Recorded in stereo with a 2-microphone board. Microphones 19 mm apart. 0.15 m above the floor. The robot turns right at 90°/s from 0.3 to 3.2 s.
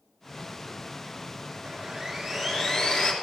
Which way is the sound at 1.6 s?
50° right.